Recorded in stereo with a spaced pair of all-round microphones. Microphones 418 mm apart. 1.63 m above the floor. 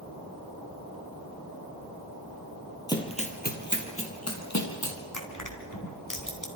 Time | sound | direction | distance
2.9 | running footsteps | 10° left (ahead or behind) | 2.5 m
5.1 | crushing | 50° left (ahead or behind) | 3.5 m